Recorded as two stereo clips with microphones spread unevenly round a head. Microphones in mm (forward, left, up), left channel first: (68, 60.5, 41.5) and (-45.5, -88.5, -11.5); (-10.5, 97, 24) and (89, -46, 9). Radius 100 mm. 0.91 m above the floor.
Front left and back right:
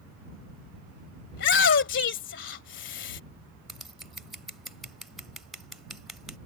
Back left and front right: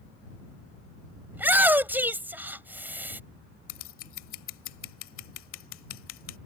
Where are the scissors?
140° left.